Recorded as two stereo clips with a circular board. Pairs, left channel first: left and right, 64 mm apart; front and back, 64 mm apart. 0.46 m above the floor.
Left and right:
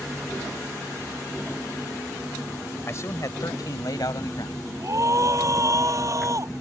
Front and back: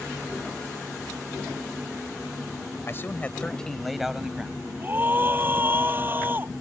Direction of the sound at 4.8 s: 120° right.